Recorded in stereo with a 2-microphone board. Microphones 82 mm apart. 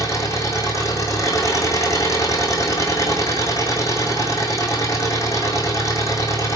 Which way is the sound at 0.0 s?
40° left (ahead or behind).